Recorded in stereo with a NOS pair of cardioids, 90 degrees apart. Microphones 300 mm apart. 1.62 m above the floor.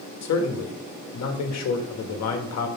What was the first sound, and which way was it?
A man speaking, 65° left.